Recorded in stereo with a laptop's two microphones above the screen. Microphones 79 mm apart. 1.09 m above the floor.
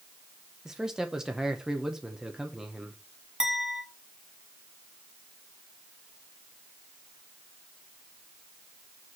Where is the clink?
5° right (ahead or behind), 1.6 m.